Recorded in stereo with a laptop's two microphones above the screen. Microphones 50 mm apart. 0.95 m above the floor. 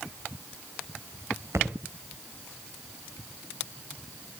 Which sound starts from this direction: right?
A thud, at 1.5 s.